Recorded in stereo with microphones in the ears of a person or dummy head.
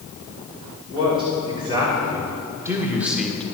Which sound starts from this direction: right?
A man speaking, at 0.9 s.